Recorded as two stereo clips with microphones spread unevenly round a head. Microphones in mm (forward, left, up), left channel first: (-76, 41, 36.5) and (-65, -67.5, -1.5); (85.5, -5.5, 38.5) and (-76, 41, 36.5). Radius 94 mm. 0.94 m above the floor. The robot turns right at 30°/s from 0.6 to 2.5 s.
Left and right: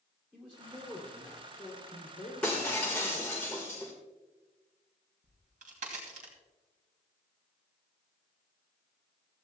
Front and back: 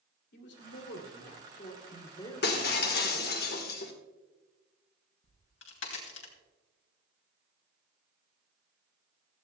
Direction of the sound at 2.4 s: 10° left.